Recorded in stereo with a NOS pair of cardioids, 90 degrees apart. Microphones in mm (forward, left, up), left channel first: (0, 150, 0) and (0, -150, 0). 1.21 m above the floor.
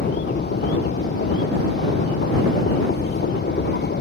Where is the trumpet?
I don't hear a trumpet.